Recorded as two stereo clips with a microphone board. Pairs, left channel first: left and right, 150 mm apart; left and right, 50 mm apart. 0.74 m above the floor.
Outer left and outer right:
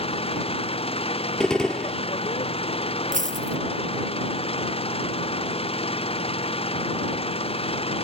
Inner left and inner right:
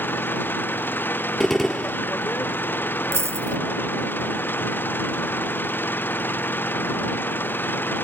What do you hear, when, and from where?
0.0 s an engine running: 40° left (ahead or behind)
1.4 s a gunshot: 5° left (ahead or behind)
3.1 s a dropped coin: 60° right (ahead or behind)